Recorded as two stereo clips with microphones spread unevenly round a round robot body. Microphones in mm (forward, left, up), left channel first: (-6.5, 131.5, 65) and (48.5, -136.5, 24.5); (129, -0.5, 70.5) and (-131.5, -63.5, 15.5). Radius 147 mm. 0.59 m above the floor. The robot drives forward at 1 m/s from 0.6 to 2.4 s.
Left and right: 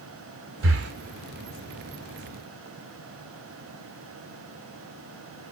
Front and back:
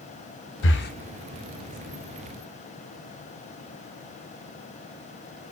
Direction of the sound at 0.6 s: 35° right.